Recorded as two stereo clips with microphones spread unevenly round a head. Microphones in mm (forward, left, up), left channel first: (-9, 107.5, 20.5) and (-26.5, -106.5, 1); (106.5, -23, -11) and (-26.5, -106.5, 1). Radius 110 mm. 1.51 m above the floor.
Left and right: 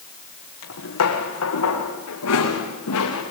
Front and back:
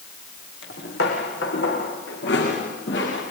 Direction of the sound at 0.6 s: 65° left.